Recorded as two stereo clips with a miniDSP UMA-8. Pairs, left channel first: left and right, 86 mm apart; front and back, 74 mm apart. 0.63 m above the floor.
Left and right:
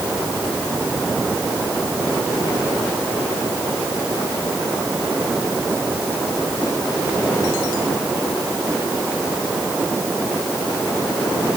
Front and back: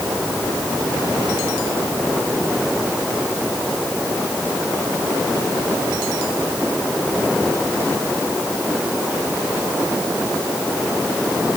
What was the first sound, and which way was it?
Only background noise.